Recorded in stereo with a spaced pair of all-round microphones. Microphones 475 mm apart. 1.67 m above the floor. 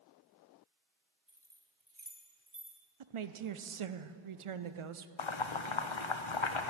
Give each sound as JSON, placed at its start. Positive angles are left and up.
{"t": 1.3, "sound": "keys jangling", "side_deg": -5, "distance_m": 2.0}
{"t": 3.0, "sound": "a woman speaking", "side_deg": -80, "distance_m": 0.6}
{"t": 5.2, "sound": "boiling", "side_deg": 70, "distance_m": 0.8}